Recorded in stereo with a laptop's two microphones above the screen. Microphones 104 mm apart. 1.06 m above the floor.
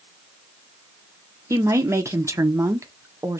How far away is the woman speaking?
About 0.7 m.